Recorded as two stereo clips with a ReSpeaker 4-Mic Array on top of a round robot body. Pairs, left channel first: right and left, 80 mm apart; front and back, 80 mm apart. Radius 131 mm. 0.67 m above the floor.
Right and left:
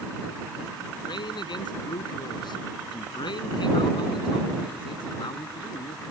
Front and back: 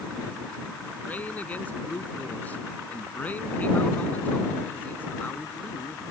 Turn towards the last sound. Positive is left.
turn(degrees=-70)